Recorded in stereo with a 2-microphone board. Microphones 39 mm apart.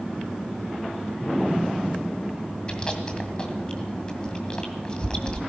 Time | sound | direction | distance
2.7 | chewing | 25° left (ahead or behind) | 2 m